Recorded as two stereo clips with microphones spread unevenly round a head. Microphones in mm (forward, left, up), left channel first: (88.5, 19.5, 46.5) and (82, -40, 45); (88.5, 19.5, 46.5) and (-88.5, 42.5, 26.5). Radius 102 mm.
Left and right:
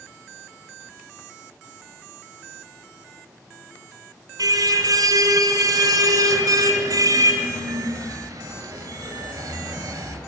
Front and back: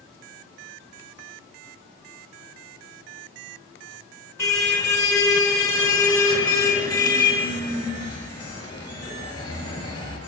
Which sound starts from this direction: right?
A car horn, at 4.4 s.